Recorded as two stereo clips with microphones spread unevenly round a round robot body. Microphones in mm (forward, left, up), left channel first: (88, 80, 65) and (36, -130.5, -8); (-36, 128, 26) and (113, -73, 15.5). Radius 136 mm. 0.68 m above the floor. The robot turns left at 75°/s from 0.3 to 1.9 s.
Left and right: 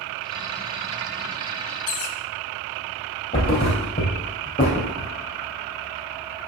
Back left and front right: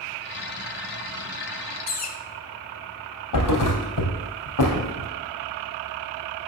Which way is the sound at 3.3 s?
135° left.